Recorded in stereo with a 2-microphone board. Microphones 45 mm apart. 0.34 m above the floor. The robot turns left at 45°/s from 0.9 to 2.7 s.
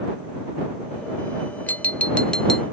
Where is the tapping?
50° left; by 2.6 s 5° left.